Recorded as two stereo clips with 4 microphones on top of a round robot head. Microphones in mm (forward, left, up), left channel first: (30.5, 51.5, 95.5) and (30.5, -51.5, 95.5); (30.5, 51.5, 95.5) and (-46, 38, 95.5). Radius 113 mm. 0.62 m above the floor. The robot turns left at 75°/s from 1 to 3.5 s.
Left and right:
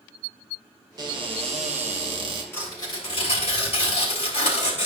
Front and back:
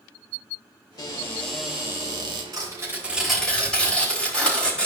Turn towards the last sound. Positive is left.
turn(degrees=85)